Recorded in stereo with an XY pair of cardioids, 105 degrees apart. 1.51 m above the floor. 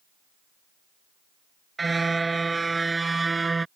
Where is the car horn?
20° right.